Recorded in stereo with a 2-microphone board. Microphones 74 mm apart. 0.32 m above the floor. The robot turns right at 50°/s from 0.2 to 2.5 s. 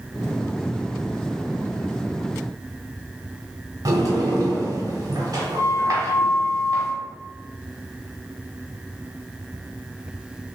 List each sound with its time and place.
3.9 s a sliding door: 50° right (ahead or behind), 1.4 m